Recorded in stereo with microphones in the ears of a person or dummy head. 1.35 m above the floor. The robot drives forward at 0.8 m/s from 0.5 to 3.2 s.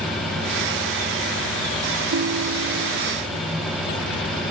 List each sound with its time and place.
2.1 s a ringtone: 70° right (ahead or behind); by 3.1 s 60° right (ahead or behind)